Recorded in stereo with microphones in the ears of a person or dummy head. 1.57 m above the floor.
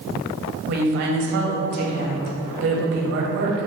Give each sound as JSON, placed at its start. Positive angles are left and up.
{"t": 0.7, "sound": "a woman speaking", "side_deg": -50, "distance_m": 0.6}